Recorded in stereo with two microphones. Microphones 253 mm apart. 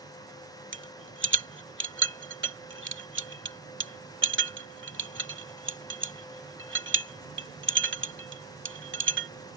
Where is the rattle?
45° right (ahead or behind).